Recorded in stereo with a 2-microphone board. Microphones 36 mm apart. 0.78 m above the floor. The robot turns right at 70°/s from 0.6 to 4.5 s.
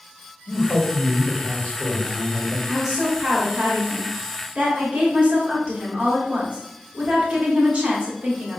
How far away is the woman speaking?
About 1.7 m.